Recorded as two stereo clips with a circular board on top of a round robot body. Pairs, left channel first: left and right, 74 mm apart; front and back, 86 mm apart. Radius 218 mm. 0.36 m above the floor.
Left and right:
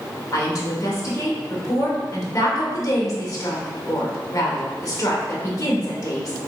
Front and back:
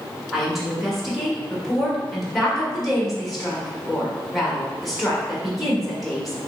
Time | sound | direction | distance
0.3 | a woman speaking | 90° left | 1.3 m